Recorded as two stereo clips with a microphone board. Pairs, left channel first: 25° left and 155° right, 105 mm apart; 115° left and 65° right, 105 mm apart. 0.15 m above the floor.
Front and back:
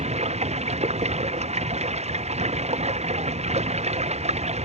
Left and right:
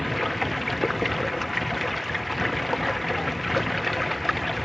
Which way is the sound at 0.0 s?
160° right.